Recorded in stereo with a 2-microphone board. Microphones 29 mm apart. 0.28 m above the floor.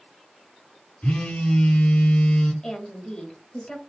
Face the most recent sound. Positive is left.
turn(degrees=25)  # may be behind; listen again after turning